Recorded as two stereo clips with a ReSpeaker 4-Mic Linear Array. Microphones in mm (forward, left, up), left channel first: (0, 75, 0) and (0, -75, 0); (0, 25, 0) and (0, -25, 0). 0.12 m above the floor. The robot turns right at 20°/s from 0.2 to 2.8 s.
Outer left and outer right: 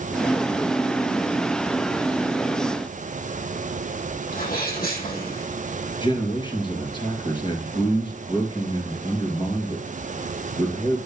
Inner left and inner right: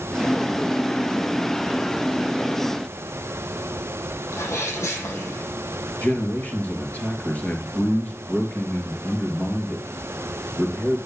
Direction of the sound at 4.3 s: 75° left (ahead or behind).